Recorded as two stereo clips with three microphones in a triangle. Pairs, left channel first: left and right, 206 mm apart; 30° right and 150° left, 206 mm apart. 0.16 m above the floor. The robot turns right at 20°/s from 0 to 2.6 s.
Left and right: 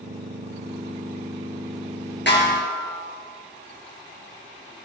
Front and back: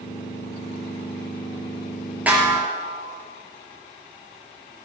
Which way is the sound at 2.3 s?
70° left.